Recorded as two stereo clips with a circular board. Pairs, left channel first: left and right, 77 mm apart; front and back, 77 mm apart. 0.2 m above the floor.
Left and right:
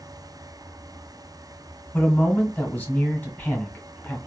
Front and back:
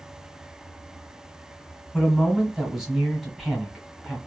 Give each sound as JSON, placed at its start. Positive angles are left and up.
{"t": 1.9, "sound": "a man speaking", "azimuth_deg": 100, "distance_m": 1.1}